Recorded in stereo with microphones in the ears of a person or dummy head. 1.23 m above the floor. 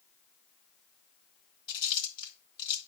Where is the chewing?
35° left (ahead or behind), 1.9 m.